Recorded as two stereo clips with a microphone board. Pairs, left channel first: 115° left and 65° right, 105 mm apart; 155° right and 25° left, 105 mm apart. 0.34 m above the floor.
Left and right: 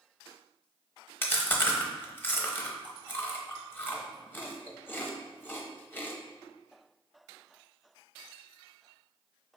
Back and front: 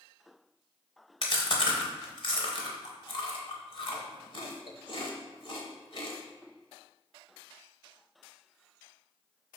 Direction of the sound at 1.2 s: Straight behind.